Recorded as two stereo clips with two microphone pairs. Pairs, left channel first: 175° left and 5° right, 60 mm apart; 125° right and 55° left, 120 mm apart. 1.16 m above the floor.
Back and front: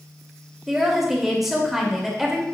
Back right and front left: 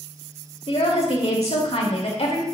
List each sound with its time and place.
0.7 s a woman speaking: 90° right, 2 m